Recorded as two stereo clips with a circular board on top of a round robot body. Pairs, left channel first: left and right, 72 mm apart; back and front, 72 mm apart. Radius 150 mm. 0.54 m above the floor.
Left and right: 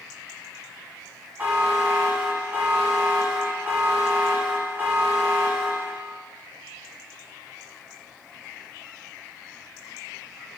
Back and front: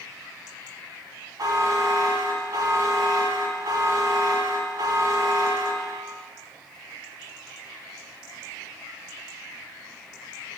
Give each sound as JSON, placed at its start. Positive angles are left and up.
{"t": 1.4, "sound": "a buzzer", "azimuth_deg": -30, "distance_m": 1.1}